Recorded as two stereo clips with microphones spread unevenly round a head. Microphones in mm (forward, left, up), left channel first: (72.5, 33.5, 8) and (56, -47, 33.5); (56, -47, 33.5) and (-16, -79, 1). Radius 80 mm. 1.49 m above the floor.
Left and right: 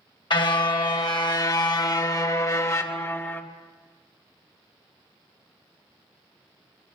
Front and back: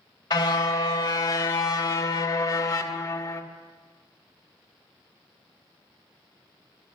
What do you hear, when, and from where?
0.3 s a car horn: 50° left, 3 m; by 3.4 s 10° left, 2 m